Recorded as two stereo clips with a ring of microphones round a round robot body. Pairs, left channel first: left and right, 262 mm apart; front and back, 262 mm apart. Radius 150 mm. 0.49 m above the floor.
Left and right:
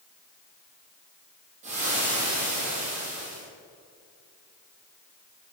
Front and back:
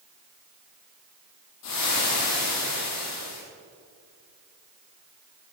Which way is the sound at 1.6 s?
20° right.